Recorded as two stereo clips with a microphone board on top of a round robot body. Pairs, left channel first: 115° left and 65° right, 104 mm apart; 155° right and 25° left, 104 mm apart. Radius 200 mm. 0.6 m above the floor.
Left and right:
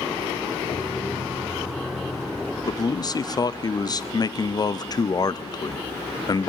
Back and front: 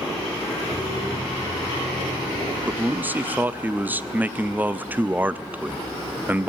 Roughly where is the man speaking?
Left.